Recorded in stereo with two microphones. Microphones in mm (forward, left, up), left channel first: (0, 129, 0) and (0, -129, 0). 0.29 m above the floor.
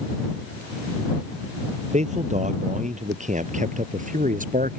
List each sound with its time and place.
1.9 s a man speaking: 30° right (ahead or behind); by 4.8 s 35° right (ahead or behind)